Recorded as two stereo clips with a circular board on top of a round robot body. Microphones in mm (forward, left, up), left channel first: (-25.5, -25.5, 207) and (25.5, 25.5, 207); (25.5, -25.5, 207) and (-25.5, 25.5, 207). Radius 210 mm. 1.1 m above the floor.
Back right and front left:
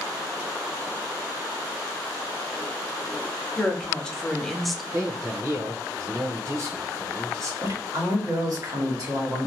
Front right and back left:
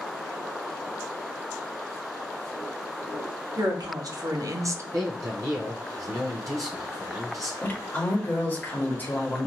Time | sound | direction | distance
3.6 | a woman speaking | 150° left | 1.3 m
4.9 | a man speaking | 90° left | 0.7 m
7.6 | a woman speaking | 15° left | 1.3 m